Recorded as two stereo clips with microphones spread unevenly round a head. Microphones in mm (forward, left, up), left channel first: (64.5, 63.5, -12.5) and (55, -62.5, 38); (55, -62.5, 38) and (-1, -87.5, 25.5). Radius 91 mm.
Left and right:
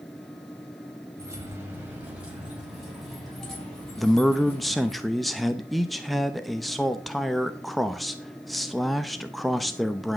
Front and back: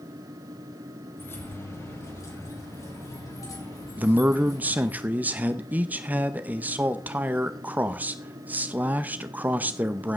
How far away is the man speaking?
About 0.7 m.